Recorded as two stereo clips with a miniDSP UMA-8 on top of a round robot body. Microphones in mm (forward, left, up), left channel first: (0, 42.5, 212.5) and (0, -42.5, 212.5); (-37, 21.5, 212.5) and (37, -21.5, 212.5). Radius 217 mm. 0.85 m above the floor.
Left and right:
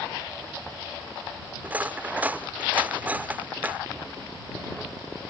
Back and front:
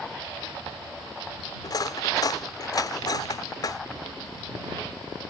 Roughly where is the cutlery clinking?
Behind.